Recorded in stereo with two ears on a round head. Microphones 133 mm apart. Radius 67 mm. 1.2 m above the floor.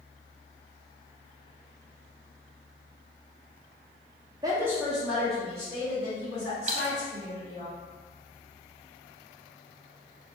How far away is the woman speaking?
About 0.6 m.